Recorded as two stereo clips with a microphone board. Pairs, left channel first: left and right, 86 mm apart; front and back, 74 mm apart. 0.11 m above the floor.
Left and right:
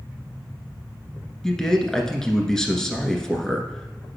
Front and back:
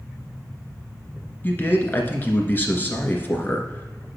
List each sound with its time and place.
1.4 s a man speaking: 15° left, 1.6 m